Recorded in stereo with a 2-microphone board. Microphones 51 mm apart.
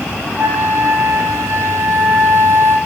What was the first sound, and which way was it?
A flute, 65° right (ahead or behind).